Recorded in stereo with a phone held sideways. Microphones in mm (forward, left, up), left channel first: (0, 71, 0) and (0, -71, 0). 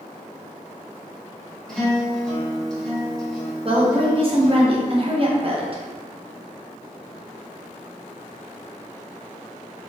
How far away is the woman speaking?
About 0.6 m.